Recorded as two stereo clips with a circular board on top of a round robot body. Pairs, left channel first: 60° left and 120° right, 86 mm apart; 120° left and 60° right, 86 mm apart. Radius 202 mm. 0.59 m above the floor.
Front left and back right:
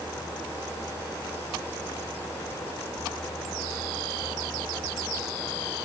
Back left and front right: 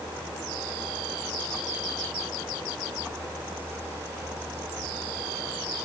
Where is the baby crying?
I don't hear a baby crying.